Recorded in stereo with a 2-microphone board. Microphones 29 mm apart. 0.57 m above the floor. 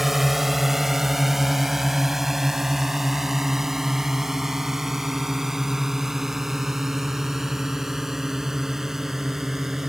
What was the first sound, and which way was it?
A drone, 5° right (ahead or behind).